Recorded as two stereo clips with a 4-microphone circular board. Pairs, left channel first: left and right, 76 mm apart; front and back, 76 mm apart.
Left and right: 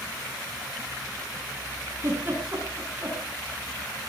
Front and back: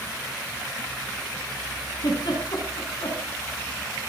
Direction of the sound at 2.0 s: 30° right.